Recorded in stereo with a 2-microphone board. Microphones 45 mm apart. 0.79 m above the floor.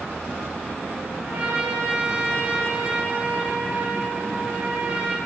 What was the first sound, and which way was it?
A trumpet, 35° right (ahead or behind).